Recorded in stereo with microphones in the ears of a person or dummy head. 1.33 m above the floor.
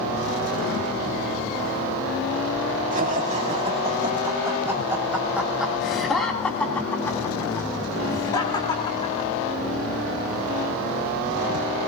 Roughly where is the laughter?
Right.